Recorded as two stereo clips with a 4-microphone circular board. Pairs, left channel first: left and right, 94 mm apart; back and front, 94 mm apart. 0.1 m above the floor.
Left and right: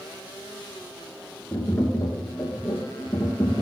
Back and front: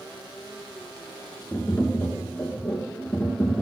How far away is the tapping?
About 2 m.